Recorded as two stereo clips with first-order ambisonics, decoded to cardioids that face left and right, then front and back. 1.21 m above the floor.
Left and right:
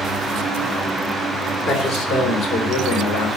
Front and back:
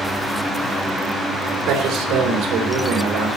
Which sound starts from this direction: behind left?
A man speaking, at 1.7 s.